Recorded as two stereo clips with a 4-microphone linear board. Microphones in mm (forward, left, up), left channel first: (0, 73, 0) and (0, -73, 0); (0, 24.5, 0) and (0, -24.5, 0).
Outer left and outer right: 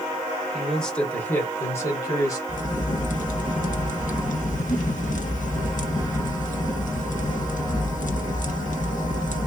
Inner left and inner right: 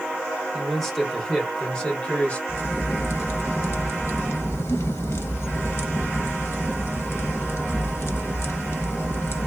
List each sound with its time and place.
0.5 s a man speaking: centre (ahead or behind), 1.4 m; by 2.4 s 25° left (ahead or behind), 1.9 m
2.5 s a crack: 65° left (ahead or behind), 0.6 m